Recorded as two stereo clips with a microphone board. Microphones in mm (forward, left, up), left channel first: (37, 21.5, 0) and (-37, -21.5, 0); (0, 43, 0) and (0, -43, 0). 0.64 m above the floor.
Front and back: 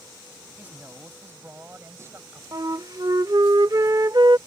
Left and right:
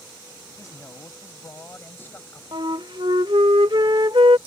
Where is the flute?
110° right.